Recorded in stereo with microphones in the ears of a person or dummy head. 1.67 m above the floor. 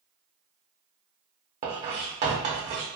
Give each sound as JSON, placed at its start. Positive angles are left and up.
{"t": 1.6, "sound": "writing", "side_deg": -20, "distance_m": 0.5}